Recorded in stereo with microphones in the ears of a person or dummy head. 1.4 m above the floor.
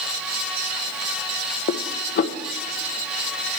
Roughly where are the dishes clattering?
Left.